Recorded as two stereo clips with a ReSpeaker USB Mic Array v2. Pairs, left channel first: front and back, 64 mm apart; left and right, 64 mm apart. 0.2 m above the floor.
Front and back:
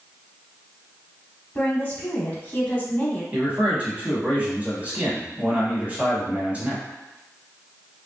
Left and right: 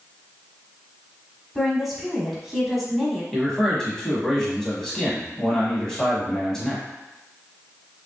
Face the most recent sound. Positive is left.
turn(degrees=160)